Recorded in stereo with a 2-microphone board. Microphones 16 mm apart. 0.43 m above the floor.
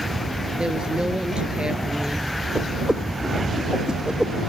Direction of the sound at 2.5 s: 65° right (ahead or behind).